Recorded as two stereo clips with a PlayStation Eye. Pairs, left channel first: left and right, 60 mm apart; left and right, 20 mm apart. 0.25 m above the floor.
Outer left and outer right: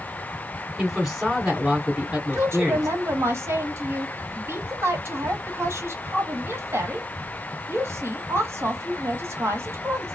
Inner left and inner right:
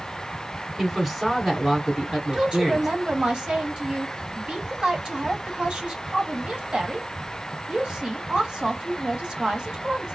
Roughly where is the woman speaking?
Right.